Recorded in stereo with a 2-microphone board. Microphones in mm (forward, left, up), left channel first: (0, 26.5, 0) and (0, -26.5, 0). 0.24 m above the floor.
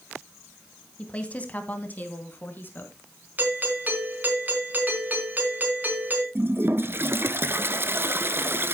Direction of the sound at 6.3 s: 45° right (ahead or behind).